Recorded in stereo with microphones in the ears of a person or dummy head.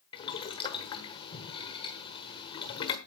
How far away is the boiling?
About 1.1 m.